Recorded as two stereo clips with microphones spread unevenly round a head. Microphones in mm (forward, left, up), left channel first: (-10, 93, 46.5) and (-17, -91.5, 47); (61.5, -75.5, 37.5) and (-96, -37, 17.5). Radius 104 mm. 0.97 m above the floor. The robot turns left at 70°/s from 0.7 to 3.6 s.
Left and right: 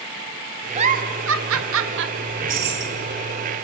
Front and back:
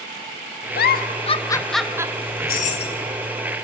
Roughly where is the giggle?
Ahead right.